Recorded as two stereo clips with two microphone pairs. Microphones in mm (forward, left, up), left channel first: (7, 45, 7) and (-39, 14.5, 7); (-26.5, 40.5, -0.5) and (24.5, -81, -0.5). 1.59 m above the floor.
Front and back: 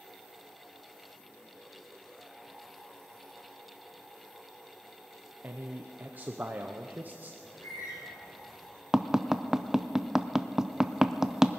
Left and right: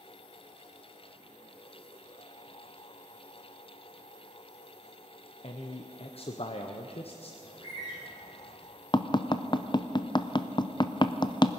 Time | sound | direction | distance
5.4 | a man speaking | 155° left | 0.8 m
7.4 | a bird | 60° left | 7 m
8.9 | tapping | 140° left | 0.5 m